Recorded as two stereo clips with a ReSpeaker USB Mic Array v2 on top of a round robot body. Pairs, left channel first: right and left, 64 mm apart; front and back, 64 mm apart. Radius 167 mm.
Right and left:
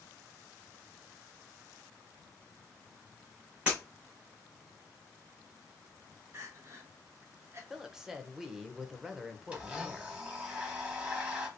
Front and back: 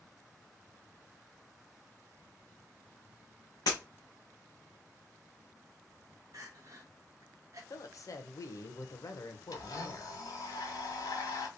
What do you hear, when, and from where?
3.7 s breaking glass: 15° left, 1.1 m
6.3 s crying: 140° left, 0.8 m
7.7 s a woman speaking: 10° left, 1.0 m
9.5 s a blender: 15° left, 1.5 m